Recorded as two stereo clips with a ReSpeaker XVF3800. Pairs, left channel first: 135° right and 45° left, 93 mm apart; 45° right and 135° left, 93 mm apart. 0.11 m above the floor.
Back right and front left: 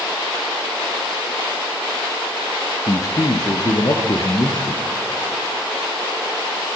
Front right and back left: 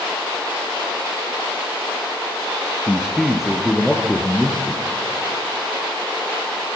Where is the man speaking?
145° right, 2 m; by 4.8 s 125° right, 3 m.